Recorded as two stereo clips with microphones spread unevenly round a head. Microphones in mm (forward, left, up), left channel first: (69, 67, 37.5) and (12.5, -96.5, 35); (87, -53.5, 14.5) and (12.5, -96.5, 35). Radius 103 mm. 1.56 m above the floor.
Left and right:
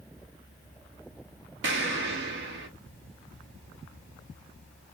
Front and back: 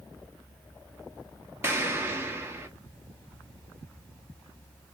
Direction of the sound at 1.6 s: 95° right.